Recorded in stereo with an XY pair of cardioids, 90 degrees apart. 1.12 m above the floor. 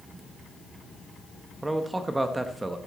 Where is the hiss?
No hiss in this recording.